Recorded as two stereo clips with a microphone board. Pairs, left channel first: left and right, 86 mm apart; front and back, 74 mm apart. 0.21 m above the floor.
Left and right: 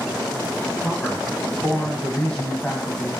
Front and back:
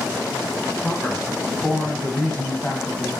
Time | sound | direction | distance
0.8 | a man speaking | 35° left | 1.0 m